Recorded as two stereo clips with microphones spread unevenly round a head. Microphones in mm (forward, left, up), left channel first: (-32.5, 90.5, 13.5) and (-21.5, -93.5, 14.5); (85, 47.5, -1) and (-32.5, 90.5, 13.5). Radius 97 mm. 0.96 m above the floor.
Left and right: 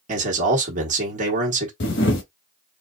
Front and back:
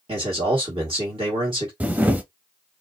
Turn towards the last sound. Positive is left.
turn(degrees=90)